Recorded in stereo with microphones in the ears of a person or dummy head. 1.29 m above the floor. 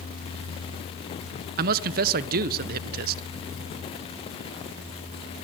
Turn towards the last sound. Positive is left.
turn(degrees=-45)  # may be behind; listen again after turning